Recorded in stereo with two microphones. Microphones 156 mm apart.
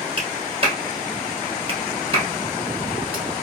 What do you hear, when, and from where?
0.2 s a clap: 40° right (ahead or behind), 2.0 m